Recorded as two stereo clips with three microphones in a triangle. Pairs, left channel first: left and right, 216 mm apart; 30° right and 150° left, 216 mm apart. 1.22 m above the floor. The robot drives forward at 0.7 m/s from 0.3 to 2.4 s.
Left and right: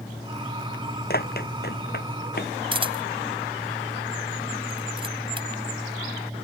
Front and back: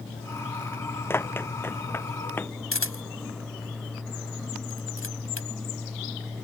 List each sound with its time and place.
1.1 s running footsteps: 50° left
2.7 s a camera shutter: 25° right